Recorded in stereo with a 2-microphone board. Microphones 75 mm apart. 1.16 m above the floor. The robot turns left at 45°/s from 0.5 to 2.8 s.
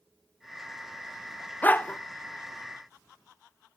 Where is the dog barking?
20° left (ahead or behind), 0.6 m.